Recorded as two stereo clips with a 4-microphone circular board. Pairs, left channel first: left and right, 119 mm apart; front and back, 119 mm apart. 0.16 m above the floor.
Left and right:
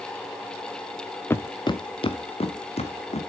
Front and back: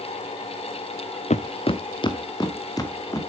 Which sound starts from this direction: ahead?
Footsteps, at 1.3 s.